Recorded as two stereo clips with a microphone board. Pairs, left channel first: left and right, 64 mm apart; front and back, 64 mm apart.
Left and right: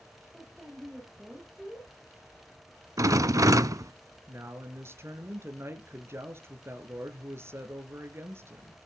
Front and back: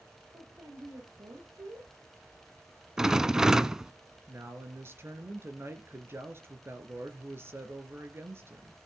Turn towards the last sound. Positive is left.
turn(degrees=-135)